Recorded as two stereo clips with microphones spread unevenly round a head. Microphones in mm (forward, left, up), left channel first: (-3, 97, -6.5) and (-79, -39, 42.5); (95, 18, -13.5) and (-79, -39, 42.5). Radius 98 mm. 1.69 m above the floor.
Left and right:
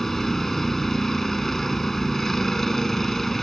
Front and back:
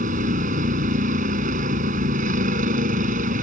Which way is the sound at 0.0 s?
155° left.